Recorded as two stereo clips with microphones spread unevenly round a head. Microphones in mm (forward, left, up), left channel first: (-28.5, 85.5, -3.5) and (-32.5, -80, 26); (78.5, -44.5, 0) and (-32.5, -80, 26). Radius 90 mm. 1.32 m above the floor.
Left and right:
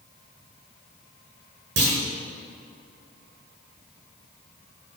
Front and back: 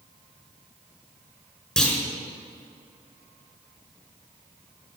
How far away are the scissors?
No scissors in this recording.